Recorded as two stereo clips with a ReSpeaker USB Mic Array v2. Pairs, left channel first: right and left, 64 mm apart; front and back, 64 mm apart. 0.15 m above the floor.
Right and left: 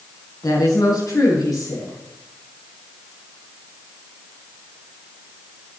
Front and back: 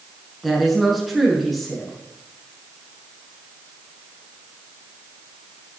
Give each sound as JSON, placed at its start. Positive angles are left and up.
{"t": 0.4, "sound": "a woman speaking", "azimuth_deg": -90, "distance_m": 5.0}